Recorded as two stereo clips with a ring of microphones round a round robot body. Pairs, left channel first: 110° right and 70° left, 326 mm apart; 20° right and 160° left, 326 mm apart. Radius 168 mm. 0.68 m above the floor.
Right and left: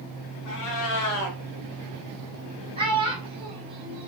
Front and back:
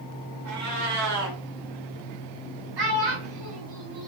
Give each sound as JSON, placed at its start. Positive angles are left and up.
{"t": 0.5, "sound": "a cat meowing", "azimuth_deg": -155, "distance_m": 1.2}
{"t": 2.8, "sound": "a child speaking", "azimuth_deg": 145, "distance_m": 1.5}